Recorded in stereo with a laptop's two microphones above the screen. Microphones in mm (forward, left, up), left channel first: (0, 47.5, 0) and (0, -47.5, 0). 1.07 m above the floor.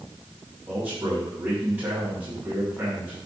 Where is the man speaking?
20° right (ahead or behind), 5.5 m.